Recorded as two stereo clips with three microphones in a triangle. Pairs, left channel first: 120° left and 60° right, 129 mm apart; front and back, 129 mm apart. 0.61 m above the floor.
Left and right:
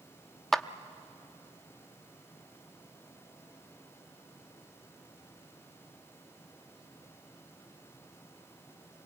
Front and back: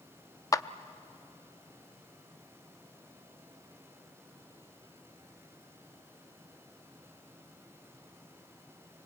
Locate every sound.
0.5 s a clap: 35° left, 0.5 m